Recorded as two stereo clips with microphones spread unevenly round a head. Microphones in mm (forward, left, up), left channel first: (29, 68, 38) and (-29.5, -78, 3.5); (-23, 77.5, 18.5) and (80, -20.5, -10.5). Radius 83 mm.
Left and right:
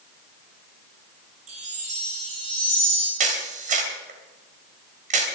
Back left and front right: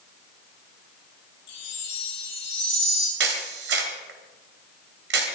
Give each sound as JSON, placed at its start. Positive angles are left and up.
{"t": 1.5, "sound": "a chime", "azimuth_deg": -160, "distance_m": 5.0}
{"t": 3.2, "sound": "a camera shutter", "azimuth_deg": -65, "distance_m": 3.0}